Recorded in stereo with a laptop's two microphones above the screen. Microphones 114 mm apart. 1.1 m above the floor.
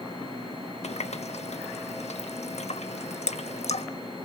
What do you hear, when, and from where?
0.8 s a running tap: 75° left (ahead or behind), 0.9 m